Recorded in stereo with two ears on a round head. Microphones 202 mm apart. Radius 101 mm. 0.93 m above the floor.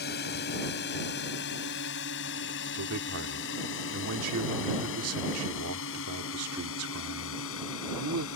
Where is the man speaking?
70° right (ahead or behind).